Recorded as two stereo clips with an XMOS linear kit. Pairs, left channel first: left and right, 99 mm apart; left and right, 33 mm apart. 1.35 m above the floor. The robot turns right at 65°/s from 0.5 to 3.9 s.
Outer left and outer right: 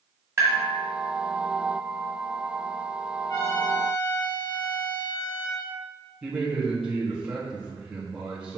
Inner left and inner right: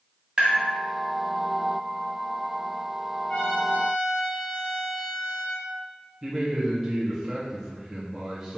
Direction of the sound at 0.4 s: 25° right (ahead or behind).